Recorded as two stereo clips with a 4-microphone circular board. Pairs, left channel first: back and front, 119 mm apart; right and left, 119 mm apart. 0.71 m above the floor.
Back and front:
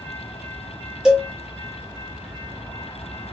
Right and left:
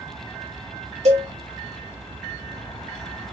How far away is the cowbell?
About 1.3 m.